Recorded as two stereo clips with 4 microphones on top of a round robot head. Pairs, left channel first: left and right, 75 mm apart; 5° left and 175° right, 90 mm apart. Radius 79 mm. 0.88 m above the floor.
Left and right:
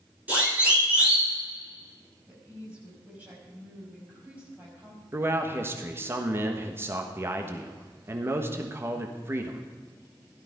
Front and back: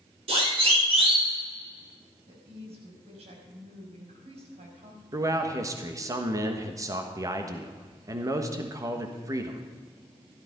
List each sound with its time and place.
0.3 s a siren: 165° right, 5.5 m
2.3 s a woman speaking: 165° right, 5.5 m
5.1 s a man speaking: 140° right, 1.3 m